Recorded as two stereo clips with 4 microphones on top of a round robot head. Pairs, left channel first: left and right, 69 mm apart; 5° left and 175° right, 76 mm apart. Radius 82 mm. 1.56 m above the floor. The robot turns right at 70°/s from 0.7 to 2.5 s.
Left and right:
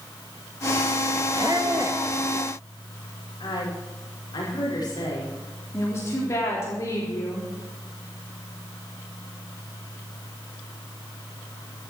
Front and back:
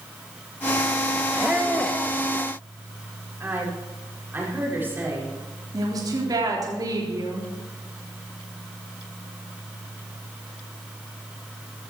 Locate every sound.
1.4 s a squeak: 115° right, 1.0 m; by 2.0 s 65° right, 1.0 m
3.4 s a woman speaking: 120° left, 5.5 m
5.7 s a woman speaking: 145° left, 4 m